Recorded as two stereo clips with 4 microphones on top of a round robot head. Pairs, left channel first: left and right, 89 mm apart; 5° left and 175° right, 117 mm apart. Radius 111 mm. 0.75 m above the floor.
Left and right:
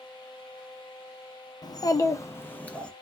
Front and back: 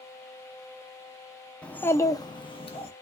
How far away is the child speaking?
About 0.7 m.